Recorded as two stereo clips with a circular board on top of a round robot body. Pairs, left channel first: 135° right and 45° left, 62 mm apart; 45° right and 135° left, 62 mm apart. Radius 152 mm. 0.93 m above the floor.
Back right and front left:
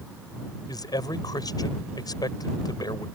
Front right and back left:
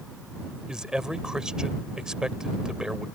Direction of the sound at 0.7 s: 145° right.